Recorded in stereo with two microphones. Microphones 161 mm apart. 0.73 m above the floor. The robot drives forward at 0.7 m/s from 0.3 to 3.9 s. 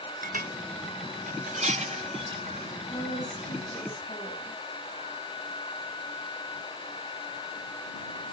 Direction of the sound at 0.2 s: 60° right (ahead or behind).